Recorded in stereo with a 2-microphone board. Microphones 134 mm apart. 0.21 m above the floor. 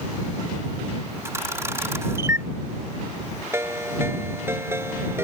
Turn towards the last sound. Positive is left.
turn(degrees=-20)  # may be behind; listen again after turning